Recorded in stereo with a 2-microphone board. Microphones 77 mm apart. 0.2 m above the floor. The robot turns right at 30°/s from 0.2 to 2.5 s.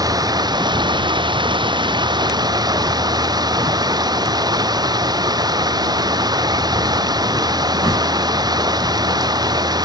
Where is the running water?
125° right; by 9.9 s 60° right.